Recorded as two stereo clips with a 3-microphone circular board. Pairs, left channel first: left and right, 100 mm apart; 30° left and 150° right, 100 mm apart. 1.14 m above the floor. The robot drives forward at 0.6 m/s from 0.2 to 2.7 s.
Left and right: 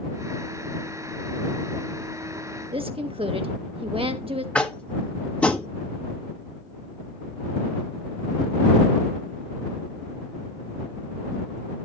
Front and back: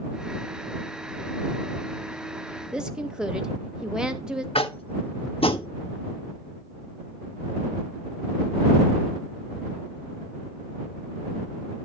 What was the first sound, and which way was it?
A woman speaking, 65° right.